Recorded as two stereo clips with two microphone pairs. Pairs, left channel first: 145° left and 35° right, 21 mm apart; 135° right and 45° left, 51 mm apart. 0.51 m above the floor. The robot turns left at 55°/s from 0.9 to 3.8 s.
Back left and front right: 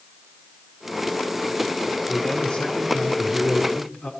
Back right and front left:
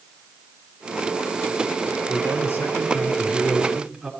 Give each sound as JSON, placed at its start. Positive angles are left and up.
{"t": 2.1, "sound": "a man speaking", "azimuth_deg": -140, "distance_m": 6.0}